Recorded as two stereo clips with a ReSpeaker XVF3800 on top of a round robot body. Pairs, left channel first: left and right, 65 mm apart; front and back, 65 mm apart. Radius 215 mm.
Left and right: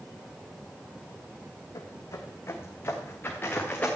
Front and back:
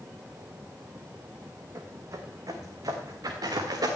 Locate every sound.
1.8 s footsteps: 130° left, 1.1 m; by 3.9 s 155° left, 2 m